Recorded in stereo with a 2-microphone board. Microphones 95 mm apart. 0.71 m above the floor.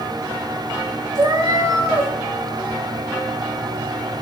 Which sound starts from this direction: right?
A cat meowing, at 1.1 s.